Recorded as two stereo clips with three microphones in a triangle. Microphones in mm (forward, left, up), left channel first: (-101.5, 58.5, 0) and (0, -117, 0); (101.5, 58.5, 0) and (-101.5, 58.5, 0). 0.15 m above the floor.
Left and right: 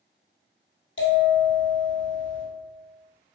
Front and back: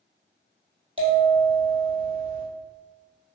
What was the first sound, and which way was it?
A bell, 115° left.